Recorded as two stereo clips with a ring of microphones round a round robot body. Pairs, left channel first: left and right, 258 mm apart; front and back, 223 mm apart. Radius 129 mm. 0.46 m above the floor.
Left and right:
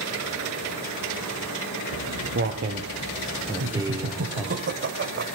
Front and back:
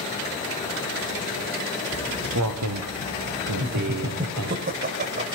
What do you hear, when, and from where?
1.9 s footsteps: 135° right, 3 m; by 4.6 s 175° right, 4.5 m
3.6 s laughter: 130° right, 2 m